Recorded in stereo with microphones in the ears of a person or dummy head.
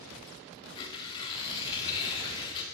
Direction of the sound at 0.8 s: 25° left (ahead or behind).